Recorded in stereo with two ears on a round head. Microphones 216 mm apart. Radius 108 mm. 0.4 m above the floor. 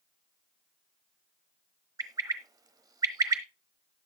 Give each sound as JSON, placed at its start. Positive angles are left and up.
{"t": 2.0, "sound": "a bird", "side_deg": -15, "distance_m": 1.1}